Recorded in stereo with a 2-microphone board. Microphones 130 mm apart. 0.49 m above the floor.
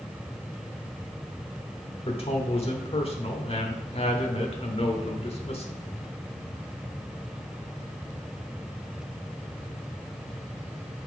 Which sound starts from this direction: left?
A man speaking, at 2.0 s.